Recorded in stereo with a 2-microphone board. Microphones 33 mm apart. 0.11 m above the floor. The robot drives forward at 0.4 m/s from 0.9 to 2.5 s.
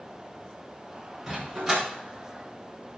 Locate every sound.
1.3 s a dog barking: 20° right (ahead or behind), 6.5 m